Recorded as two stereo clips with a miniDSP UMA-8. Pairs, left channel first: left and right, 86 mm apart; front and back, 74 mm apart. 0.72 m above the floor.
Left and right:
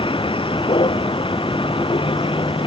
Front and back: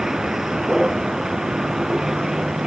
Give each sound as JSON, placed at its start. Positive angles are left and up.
{"t": 0.0, "sound": "a vehicle", "azimuth_deg": 95}